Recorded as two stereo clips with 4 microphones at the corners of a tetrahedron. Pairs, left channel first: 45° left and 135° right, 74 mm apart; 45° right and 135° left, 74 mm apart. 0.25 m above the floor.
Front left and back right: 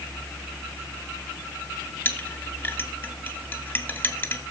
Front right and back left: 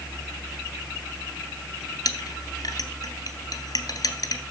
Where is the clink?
15° right, 2.5 m.